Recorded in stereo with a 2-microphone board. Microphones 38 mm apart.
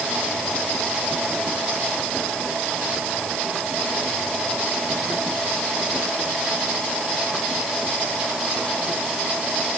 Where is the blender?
I don't hear a blender.